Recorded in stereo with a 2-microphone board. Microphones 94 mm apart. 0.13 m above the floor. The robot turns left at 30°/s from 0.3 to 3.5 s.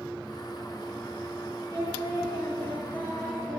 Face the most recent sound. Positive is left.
turn(degrees=20)